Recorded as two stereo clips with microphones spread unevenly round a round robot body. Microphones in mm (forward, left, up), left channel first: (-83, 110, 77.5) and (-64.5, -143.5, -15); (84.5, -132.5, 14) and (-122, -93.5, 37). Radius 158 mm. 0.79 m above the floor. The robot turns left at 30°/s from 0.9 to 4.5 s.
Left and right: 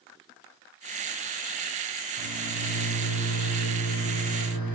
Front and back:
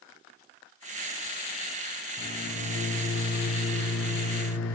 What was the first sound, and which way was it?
A microwave, 75° left.